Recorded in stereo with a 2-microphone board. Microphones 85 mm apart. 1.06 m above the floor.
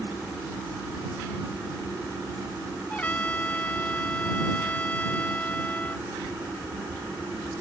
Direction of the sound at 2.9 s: 20° left (ahead or behind).